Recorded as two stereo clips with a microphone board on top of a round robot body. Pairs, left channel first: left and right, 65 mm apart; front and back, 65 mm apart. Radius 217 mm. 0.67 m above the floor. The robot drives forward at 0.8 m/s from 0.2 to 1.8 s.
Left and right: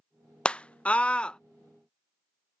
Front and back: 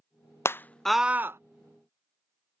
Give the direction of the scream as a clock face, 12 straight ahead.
11 o'clock.